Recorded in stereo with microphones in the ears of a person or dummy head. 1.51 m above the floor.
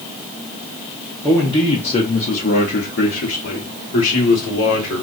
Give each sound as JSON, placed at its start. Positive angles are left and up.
{"t": 1.2, "sound": "a man speaking", "side_deg": 10, "distance_m": 0.9}